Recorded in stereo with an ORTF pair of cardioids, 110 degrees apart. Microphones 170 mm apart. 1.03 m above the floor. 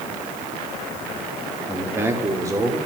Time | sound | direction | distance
1.7 | a man speaking | 10° right | 2.5 m